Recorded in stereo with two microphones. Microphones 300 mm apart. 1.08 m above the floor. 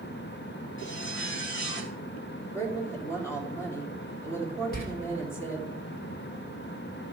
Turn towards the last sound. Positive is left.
turn(degrees=30)  # may be behind; listen again after turning